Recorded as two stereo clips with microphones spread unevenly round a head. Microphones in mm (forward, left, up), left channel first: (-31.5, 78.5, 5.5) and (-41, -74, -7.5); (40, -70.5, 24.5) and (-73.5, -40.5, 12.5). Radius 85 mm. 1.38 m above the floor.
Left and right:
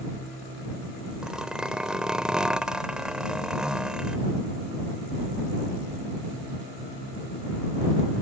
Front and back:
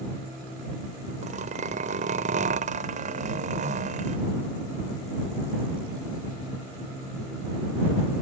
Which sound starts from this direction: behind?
A zipper, at 1.2 s.